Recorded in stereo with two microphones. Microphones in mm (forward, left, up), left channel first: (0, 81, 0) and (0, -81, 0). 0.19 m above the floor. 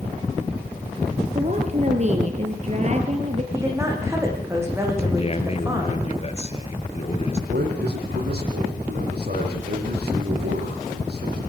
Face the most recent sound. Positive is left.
turn(degrees=-80)